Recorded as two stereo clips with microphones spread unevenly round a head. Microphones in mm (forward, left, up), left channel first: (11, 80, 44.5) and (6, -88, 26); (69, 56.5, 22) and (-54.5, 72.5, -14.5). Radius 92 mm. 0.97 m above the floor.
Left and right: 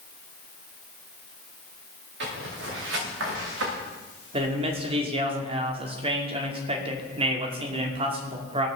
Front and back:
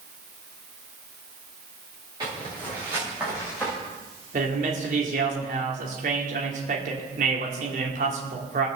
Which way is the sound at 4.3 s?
150° right.